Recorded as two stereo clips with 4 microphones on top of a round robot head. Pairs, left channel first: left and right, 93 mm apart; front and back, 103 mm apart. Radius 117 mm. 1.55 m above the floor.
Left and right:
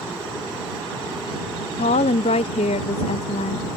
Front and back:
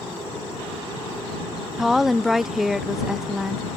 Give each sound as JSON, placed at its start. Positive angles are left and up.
{"t": 1.8, "sound": "a woman speaking", "azimuth_deg": 95}